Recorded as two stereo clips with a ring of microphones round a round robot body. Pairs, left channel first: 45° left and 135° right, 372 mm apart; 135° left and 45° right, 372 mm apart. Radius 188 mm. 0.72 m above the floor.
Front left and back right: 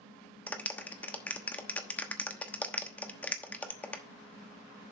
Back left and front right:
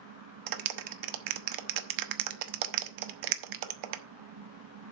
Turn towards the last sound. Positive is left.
turn(degrees=-40)